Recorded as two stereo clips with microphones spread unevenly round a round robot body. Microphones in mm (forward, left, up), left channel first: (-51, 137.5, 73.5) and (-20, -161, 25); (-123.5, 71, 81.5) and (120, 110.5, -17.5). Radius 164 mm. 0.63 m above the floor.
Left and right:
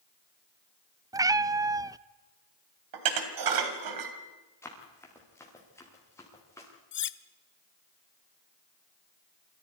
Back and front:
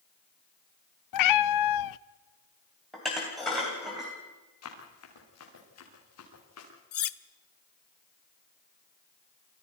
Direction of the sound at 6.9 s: 150° left.